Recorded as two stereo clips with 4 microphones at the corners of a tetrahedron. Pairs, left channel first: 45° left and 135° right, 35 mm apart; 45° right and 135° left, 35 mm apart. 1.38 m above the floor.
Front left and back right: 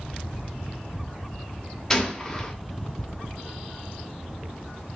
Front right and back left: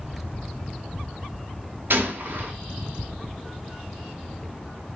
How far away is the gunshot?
About 0.5 m.